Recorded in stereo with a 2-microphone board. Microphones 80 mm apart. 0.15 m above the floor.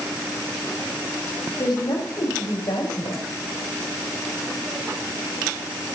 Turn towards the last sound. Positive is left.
turn(degrees=80)